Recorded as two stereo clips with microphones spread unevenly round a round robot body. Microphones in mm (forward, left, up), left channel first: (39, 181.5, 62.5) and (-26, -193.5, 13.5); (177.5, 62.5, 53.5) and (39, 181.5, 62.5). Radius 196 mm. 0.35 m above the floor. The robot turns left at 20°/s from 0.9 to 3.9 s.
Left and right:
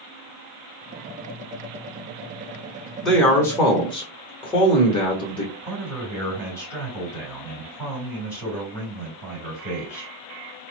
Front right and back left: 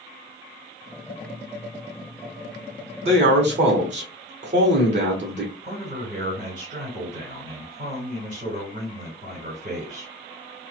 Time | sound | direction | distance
3.0 | a man speaking | straight behind | 1.0 m
5.6 | a man speaking | 170° left | 2.0 m